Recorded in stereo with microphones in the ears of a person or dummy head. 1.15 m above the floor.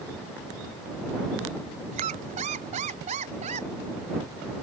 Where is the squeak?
40° right (ahead or behind).